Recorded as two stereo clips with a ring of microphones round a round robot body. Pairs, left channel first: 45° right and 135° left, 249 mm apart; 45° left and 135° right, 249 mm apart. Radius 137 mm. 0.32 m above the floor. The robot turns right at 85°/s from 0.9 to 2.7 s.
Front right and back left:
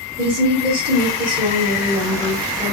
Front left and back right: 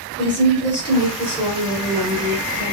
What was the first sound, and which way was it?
A woman speaking, 85° left.